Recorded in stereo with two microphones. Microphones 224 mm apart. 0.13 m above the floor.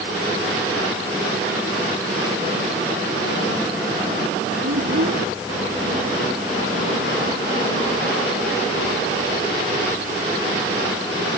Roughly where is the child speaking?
Right.